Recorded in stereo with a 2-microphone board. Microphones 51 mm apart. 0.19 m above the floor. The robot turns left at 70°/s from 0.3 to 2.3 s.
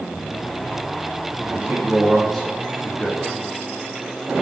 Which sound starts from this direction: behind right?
A man speaking, at 1.5 s.